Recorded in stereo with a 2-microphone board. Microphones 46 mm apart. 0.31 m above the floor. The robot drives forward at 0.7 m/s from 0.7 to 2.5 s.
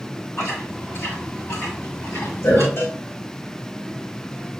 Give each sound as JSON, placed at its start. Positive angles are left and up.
{"t": 0.4, "sound": "chewing", "side_deg": 75, "distance_m": 4.5}
{"t": 2.8, "sound": "a cowbell", "side_deg": 65, "distance_m": 3.5}